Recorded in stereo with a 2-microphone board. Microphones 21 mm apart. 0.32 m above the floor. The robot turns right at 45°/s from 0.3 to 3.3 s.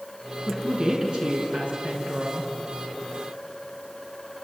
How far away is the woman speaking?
About 5 m.